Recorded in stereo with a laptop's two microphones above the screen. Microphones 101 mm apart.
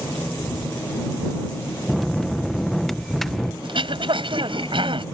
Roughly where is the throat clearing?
Right.